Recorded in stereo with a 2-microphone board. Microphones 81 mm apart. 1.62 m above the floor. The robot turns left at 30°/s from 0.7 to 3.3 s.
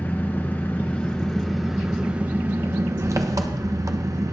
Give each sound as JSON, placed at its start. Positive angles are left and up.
{"t": 0.0, "sound": "an engine running", "azimuth_deg": 25, "distance_m": 1.0}